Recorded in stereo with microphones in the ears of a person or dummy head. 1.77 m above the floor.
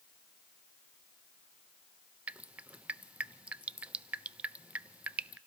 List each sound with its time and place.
2.3 s dripping: 5° right (ahead or behind), 0.6 m